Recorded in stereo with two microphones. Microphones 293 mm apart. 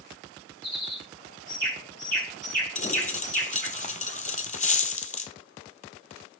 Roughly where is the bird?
Right.